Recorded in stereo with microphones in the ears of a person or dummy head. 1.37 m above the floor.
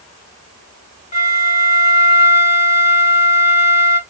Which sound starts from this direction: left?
A flute, at 1.1 s.